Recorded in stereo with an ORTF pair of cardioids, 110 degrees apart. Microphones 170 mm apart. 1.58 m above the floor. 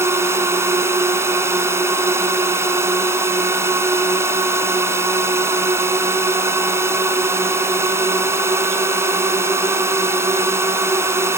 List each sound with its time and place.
0.0 s a drone: 15° right